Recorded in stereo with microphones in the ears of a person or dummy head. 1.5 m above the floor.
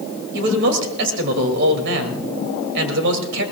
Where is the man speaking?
70° right (ahead or behind), 2.5 m.